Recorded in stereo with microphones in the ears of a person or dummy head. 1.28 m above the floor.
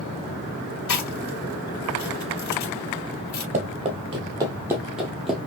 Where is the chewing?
50° left (ahead or behind), 1.8 m.